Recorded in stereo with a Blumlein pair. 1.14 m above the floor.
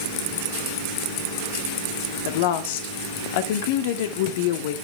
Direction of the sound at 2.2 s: 50° left.